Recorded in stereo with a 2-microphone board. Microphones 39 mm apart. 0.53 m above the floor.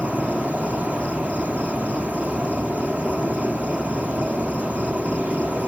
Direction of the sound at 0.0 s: 35° right (ahead or behind).